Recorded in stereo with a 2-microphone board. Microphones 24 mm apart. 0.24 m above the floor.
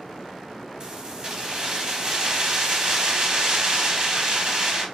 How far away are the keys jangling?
About 0.8 m.